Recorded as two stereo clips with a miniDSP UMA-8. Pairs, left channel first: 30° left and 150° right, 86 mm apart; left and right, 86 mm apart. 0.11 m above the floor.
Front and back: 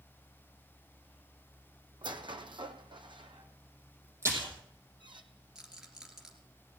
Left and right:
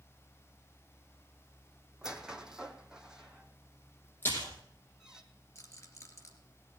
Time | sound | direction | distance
2.0 | a squeak | 170° right | 1.1 m
4.2 | a splash | 155° left | 4.5 m
5.5 | a rattle | 130° left | 2.5 m